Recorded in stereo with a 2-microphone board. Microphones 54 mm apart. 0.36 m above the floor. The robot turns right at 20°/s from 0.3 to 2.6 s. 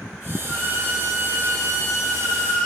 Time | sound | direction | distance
0.5 | a violin | 25° right | 2.5 m